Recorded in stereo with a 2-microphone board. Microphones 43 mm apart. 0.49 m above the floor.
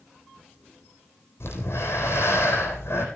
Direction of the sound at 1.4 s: 75° left (ahead or behind).